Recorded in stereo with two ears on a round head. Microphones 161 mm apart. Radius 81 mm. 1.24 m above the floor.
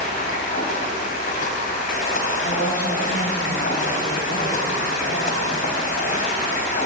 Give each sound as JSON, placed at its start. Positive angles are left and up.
{"t": 0.0, "sound": "running water", "side_deg": 50, "distance_m": 3.0}
{"t": 2.4, "sound": "a woman speaking", "side_deg": 60, "distance_m": 6.0}